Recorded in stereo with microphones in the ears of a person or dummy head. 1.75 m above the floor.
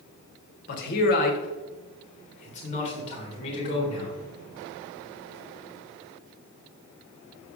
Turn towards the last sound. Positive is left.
turn(degrees=30)  # may be behind; listen again after turning